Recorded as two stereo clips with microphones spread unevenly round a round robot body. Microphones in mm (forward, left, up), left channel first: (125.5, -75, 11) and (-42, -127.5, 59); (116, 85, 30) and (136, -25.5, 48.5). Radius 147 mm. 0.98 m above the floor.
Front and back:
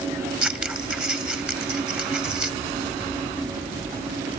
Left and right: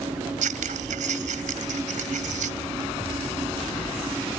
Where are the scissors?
80° right.